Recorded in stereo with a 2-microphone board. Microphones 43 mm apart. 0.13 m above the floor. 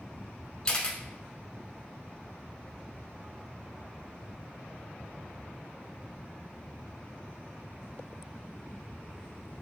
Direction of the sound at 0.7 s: 25° left (ahead or behind).